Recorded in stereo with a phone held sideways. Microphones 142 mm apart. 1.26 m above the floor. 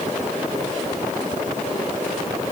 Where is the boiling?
I don't hear boiling.